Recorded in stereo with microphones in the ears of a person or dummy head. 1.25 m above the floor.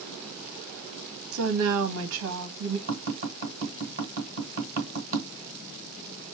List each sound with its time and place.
1.3 s a woman speaking: 70° right (ahead or behind), 1.4 m
2.9 s tapping: 35° right (ahead or behind), 3 m